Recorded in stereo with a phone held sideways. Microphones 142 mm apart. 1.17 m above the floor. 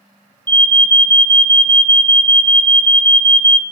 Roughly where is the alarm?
Right.